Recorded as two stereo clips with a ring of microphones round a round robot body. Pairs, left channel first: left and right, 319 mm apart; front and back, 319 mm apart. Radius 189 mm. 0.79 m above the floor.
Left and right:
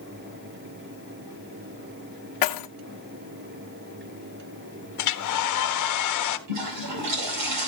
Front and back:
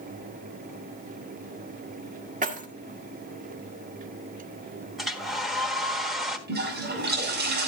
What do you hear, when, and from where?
2.4 s keys jangling: 110° left, 1.6 m
5.0 s a hair dryer: 90° left, 1.4 m
6.5 s a toilet flushing: 120° right, 6 m